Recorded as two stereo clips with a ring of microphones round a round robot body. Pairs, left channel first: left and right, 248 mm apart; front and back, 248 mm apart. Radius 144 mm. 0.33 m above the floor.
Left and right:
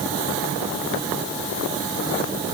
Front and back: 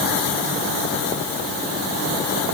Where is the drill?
No drill in this recording.